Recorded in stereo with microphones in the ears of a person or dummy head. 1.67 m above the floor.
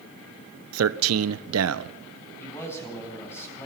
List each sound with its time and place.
0.7 s a man speaking: 85° right, 1.3 m
2.4 s a man speaking: 10° left (ahead or behind), 10 m